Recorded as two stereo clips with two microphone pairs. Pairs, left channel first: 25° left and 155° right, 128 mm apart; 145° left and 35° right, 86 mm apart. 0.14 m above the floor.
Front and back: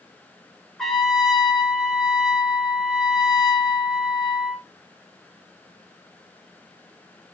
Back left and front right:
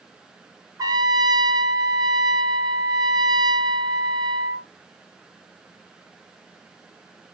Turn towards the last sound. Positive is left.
turn(degrees=-60)